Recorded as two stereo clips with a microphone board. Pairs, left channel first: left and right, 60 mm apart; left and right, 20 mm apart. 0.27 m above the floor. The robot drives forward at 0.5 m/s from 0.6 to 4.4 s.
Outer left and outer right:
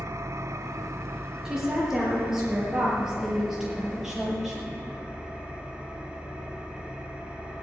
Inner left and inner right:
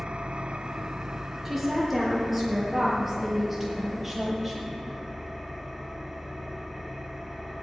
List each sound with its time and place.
0.0 s an engine running: 60° right (ahead or behind), 0.8 m; by 7.6 s 15° right (ahead or behind), 2.5 m
1.4 s a woman speaking: 10° right (ahead or behind), 4.5 m; by 4.8 s 5° right (ahead or behind), 6 m